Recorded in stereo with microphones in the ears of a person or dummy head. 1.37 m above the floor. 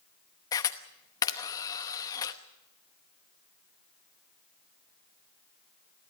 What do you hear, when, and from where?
0.5 s a camera shutter: 15° left (ahead or behind), 1.0 m